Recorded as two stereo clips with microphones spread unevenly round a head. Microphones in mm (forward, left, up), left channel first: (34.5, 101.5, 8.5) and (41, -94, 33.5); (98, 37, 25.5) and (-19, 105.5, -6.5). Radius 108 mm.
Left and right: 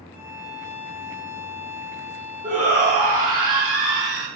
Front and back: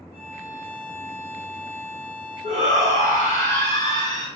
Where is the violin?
165° right, 0.5 m.